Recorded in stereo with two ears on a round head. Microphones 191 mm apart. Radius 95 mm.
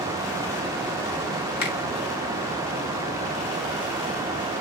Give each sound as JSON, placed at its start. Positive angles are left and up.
{"t": 1.6, "sound": "a finger snap", "side_deg": 55, "distance_m": 2.0}